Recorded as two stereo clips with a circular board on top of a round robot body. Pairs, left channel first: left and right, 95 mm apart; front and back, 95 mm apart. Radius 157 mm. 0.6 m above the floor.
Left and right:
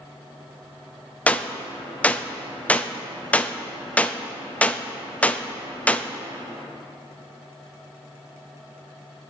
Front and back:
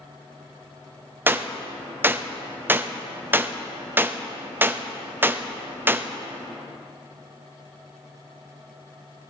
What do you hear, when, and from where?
1.3 s a gunshot: 145° left, 0.8 m